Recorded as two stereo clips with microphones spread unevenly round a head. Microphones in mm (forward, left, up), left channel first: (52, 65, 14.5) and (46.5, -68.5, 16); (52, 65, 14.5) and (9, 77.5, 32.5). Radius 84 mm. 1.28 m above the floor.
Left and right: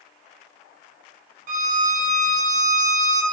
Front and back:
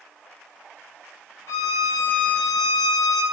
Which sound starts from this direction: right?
A violin, at 1.5 s.